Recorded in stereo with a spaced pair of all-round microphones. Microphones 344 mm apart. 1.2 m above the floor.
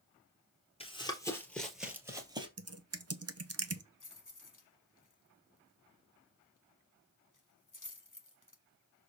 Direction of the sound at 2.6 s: 45° right (ahead or behind).